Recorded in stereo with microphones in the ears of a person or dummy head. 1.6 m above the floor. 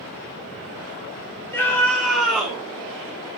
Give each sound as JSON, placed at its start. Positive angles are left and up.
{"t": 1.5, "sound": "a scream", "side_deg": 10, "distance_m": 3.5}